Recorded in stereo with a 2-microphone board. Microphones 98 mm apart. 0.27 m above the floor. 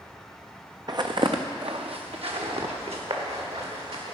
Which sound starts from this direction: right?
Footsteps, at 0.9 s.